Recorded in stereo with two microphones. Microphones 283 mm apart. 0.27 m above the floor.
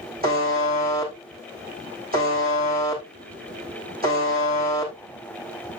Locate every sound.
0.2 s a buzzer: 35° right (ahead or behind), 4.5 m